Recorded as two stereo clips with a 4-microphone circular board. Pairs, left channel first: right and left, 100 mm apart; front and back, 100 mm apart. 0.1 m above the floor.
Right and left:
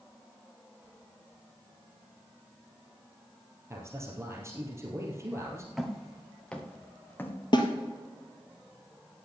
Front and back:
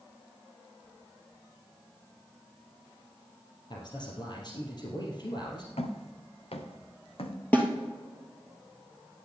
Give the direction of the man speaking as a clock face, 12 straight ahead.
11 o'clock.